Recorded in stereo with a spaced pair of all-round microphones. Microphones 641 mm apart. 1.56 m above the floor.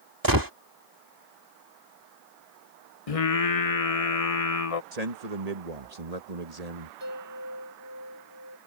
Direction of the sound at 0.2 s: 30° right (ahead or behind).